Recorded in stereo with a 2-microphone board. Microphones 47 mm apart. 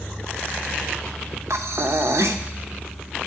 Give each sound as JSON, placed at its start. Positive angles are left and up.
{"t": 1.5, "sound": "breathing", "side_deg": -75, "distance_m": 0.8}